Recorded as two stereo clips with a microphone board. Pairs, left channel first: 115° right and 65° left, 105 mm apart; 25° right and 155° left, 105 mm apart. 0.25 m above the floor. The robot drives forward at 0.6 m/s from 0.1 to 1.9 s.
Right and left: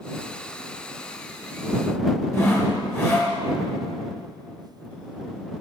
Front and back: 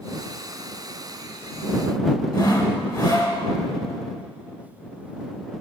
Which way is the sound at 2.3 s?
65° right.